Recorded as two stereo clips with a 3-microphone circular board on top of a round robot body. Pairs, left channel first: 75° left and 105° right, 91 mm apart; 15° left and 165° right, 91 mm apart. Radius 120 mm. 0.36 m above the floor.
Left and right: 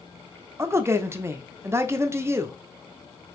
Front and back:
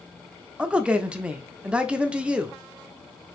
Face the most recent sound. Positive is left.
turn(degrees=-100)